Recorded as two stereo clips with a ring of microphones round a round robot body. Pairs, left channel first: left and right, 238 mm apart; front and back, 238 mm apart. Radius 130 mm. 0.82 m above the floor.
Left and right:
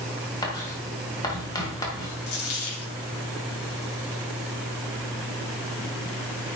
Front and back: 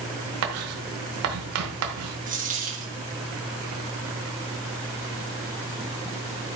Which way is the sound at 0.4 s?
165° left.